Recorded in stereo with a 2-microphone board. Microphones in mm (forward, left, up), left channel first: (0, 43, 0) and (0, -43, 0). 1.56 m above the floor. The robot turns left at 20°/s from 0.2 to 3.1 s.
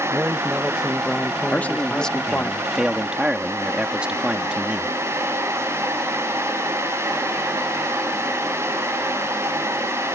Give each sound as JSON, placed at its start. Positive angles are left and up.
{"t": 0.1, "sound": "a man speaking", "azimuth_deg": -160}
{"t": 1.5, "sound": "a man speaking", "azimuth_deg": 20}